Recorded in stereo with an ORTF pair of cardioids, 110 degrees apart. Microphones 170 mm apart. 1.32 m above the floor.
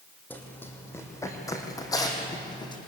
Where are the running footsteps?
10° left, 4 m; by 2.8 s 25° left, 4.5 m.